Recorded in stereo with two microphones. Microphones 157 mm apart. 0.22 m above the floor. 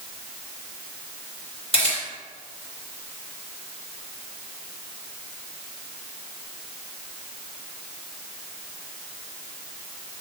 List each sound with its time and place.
1.7 s a camera shutter: 35° left (ahead or behind), 3 m